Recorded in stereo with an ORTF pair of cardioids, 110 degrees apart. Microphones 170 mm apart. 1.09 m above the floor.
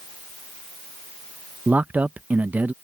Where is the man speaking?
10° right.